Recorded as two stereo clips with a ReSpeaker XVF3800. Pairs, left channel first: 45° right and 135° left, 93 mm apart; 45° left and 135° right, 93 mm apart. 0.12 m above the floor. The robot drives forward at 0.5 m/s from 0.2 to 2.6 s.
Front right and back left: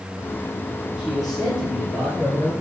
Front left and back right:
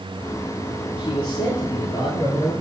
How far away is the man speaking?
About 3 m.